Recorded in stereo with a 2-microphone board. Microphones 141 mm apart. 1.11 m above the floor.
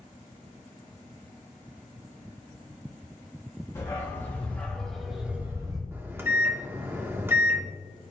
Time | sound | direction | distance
3.8 | a dog barking | 20° left (ahead or behind) | 3 m
5.9 | a microwave | 15° right (ahead or behind) | 1.0 m